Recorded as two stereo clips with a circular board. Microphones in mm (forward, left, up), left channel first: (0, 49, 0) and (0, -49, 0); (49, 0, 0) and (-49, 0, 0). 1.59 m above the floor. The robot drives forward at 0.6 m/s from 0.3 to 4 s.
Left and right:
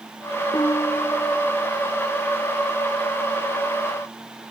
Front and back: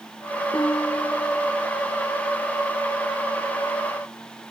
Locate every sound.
0.5 s a piano: 50° left; by 1.7 s 60° left